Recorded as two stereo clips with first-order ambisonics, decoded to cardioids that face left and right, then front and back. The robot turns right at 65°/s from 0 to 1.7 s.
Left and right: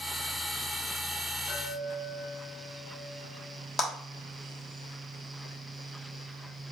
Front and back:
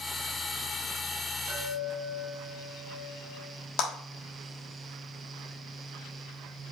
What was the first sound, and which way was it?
A chime, 175° right.